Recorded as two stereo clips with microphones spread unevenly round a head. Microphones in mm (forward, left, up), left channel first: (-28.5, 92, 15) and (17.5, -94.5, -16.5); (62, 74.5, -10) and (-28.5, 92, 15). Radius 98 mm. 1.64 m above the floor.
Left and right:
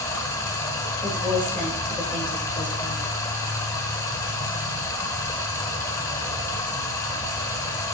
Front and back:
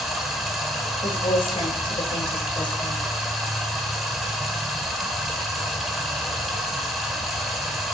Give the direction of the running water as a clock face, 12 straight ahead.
8 o'clock.